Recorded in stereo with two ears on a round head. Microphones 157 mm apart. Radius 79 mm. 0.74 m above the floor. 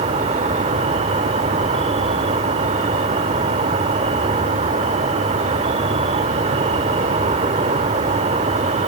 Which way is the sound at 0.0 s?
40° right (ahead or behind).